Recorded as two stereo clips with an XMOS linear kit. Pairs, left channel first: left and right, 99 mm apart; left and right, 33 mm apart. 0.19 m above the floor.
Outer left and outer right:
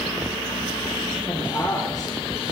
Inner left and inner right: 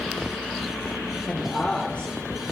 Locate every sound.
1.3 s a woman speaking: 35° left (ahead or behind), 4 m; by 2.4 s 40° left (ahead or behind), 3 m